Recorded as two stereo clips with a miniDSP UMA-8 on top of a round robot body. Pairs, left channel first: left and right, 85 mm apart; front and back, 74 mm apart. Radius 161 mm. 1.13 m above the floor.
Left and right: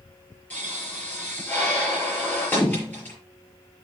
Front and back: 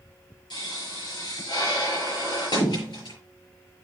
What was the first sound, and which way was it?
A pop, 20° left.